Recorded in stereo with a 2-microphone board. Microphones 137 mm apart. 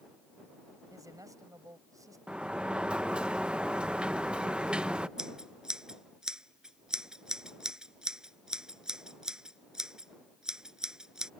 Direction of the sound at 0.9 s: 25° right (ahead or behind).